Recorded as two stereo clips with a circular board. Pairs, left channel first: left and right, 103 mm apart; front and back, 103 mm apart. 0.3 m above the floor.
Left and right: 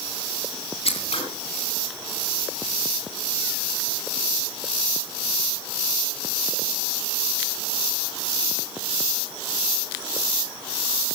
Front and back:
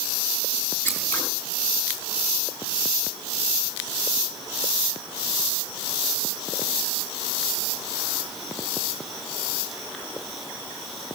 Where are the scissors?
75° left, 7.5 m.